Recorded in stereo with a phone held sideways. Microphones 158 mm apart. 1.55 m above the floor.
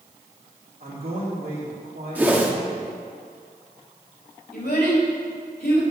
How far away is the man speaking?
About 2 m.